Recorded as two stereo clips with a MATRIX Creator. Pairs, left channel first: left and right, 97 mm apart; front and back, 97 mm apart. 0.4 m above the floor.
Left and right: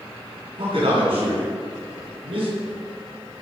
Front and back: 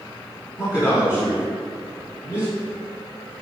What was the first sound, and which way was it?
A man speaking, 60° right.